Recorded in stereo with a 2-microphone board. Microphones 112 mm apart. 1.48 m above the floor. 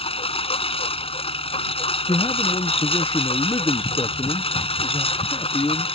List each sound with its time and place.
0.0 s a lawn mower: 60° left (ahead or behind)
2.1 s a man speaking: 40° left (ahead or behind)